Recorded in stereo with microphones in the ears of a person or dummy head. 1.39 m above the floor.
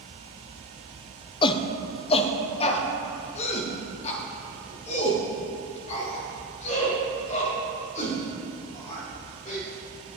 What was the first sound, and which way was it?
A shout, 30° left (ahead or behind).